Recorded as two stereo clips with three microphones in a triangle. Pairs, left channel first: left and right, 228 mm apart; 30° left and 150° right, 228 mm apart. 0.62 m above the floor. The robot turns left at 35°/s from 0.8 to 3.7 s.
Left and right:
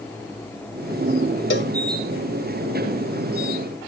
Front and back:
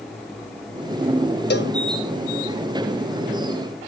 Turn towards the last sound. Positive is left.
turn(degrees=-15)